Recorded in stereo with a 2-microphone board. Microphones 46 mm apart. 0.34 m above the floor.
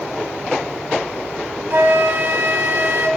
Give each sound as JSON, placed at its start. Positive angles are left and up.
{"t": 1.7, "sound": "a flute", "side_deg": -60, "distance_m": 0.5}